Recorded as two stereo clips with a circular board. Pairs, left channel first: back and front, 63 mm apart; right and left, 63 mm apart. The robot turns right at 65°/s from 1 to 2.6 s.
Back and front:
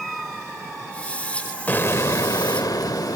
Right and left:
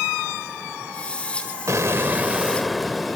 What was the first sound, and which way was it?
An explosion, 120° left.